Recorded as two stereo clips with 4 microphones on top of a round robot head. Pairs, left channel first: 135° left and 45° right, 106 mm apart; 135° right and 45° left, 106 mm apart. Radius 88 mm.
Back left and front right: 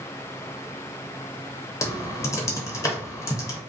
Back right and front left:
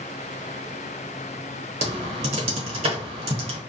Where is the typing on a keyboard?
75° left, 0.7 m.